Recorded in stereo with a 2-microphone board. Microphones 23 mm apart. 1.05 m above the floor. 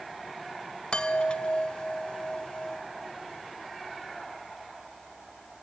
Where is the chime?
45° left (ahead or behind), 1.3 m.